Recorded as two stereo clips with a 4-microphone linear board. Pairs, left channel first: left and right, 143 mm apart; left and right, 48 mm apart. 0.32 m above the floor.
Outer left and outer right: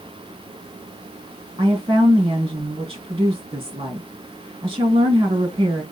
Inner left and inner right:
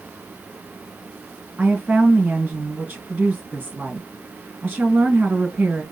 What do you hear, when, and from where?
1.6 s a woman speaking: 35° right (ahead or behind), 3.5 m